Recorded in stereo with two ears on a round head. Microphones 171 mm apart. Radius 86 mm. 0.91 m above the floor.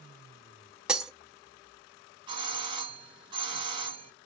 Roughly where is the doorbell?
Right.